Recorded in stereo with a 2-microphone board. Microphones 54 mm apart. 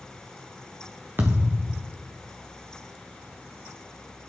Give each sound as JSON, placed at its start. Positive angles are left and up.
{"t": 1.2, "sound": "a thud", "side_deg": -40, "distance_m": 1.6}